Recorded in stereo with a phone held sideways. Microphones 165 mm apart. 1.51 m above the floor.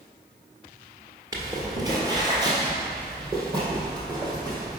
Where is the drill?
No drill in this recording.